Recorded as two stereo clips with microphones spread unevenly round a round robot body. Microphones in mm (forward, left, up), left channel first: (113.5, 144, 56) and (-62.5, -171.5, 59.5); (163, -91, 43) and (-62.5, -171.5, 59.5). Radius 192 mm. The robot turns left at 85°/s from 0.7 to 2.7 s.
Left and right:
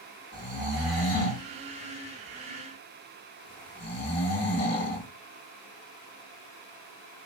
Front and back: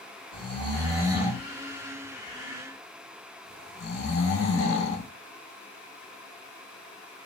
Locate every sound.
0.3 s snoring: 160° left, 1.4 m; by 5.1 s 10° right, 1.4 m